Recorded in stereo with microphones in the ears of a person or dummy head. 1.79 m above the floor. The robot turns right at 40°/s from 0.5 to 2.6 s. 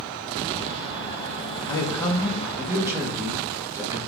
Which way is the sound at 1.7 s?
150° left.